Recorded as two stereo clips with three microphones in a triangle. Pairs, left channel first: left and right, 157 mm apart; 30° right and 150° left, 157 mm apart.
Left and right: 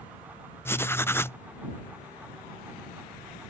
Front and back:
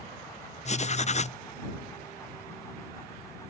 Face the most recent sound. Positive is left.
turn(degrees=15)